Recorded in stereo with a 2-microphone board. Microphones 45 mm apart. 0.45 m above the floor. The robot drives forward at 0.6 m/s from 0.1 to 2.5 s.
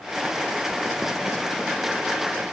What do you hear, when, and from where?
Only background noise.